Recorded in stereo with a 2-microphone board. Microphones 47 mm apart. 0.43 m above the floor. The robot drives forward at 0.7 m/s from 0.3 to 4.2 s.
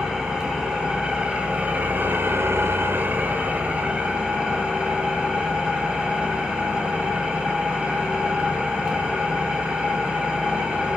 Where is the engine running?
15° right (ahead or behind), 1.7 m; by 11.0 s 20° right (ahead or behind), 1.3 m.